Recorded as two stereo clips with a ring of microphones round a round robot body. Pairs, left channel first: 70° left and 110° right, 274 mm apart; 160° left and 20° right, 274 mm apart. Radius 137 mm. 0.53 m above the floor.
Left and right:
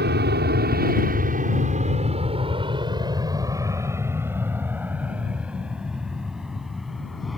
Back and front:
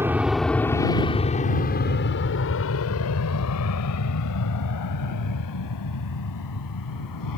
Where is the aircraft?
100° right; by 7.4 s 160° left.